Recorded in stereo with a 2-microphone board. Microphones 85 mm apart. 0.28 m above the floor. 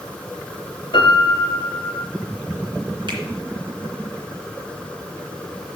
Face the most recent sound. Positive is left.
turn(degrees=-60)  # may be behind; listen again after turning